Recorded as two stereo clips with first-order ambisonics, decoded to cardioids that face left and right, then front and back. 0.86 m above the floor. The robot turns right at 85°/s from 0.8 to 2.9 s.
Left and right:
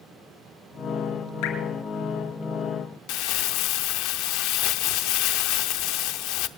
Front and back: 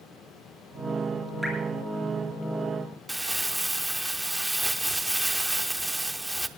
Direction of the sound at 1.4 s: 90° left.